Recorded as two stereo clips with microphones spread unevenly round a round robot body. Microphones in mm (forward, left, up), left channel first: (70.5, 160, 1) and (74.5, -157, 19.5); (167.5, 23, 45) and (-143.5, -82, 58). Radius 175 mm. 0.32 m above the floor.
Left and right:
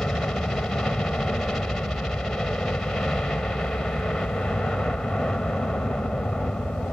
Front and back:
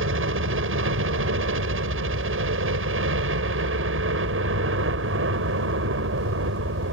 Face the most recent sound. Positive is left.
turn(degrees=175)